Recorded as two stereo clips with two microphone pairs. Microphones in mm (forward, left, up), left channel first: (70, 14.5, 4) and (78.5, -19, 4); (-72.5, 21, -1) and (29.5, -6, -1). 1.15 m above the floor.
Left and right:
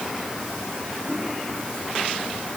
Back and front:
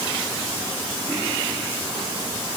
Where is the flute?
No flute in this recording.